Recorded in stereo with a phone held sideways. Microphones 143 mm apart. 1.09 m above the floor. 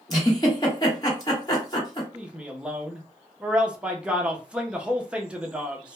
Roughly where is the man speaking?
Centre.